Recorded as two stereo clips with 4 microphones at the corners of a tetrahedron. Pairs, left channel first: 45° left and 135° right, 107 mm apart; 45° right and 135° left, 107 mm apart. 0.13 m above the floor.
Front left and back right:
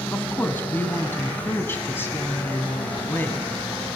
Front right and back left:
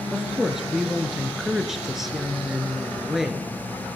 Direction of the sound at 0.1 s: 55° left.